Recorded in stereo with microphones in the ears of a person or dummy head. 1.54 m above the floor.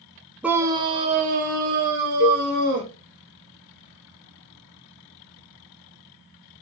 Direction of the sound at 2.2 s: 30° left (ahead or behind).